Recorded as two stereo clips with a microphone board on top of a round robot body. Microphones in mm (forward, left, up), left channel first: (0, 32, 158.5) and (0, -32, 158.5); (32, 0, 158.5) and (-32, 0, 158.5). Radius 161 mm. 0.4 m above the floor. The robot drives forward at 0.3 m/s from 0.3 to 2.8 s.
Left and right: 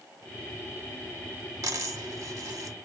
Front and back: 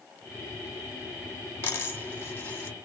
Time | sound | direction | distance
1.6 | a dropped coin | 55° right | 1.7 m